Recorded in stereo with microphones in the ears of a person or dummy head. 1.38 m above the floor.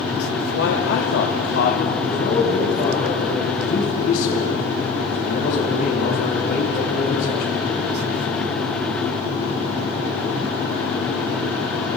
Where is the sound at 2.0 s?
60° left (ahead or behind), 8.5 m.